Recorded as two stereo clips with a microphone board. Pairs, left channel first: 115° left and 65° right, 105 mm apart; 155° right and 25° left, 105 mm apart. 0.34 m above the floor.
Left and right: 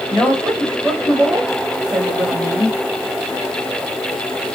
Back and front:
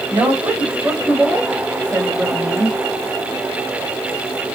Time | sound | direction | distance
0.1 | a woman speaking | 30° left | 1.6 m